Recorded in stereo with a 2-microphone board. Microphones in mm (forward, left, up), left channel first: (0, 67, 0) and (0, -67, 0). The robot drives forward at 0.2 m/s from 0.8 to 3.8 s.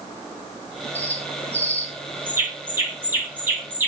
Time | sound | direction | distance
0.9 | a bird | 20° right (ahead or behind) | 2 m